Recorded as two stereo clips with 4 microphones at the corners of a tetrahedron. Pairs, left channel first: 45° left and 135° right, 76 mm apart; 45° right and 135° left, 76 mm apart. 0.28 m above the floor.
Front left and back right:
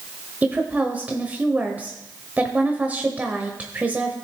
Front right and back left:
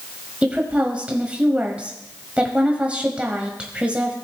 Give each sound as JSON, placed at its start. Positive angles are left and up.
{"t": 0.4, "sound": "a woman speaking", "azimuth_deg": -175, "distance_m": 1.1}